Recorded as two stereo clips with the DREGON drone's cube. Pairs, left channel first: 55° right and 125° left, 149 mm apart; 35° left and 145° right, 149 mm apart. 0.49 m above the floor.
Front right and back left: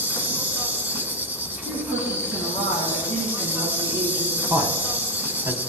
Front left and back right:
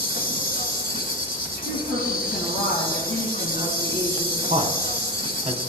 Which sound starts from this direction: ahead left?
An insect, at 0.0 s.